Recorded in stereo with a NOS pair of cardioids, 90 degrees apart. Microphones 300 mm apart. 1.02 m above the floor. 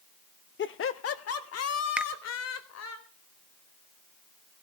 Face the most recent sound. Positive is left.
turn(degrees=-5)